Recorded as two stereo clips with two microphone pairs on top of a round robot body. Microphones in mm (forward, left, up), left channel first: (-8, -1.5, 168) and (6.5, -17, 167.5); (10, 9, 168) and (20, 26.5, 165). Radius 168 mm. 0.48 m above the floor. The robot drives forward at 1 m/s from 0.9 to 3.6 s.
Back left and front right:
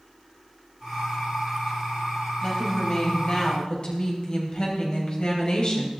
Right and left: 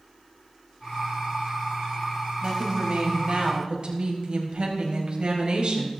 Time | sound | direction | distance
2.4 | a woman speaking | 75° left | 4.5 m